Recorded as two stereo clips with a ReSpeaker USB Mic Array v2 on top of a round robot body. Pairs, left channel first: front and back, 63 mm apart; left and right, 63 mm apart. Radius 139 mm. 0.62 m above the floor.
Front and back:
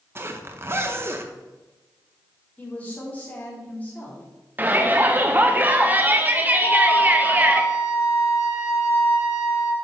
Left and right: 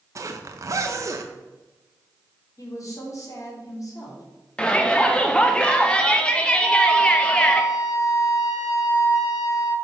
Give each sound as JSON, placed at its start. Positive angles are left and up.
{"t": 0.1, "sound": "a zipper", "azimuth_deg": -130, "distance_m": 0.7}
{"t": 2.6, "sound": "a woman speaking", "azimuth_deg": 65, "distance_m": 2.5}
{"t": 4.6, "sound": "a shout", "azimuth_deg": 150, "distance_m": 0.8}
{"t": 6.6, "sound": "a flute", "azimuth_deg": 0, "distance_m": 3.5}